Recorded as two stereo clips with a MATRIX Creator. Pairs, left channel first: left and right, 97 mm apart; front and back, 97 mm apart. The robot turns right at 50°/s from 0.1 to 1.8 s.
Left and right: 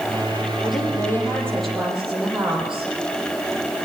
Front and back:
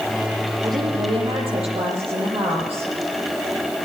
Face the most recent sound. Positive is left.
turn(degrees=-175)